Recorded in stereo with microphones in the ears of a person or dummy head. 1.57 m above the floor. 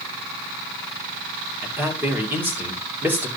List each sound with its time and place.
1.6 s a man speaking: 10° right (ahead or behind), 2.5 m